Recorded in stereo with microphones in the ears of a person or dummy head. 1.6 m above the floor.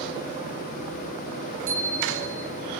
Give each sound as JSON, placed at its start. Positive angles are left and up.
{"t": 1.7, "sound": "a bicycle bell", "side_deg": -35, "distance_m": 4.5}